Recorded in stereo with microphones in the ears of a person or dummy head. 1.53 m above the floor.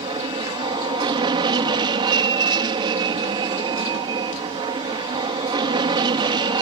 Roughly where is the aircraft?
Right.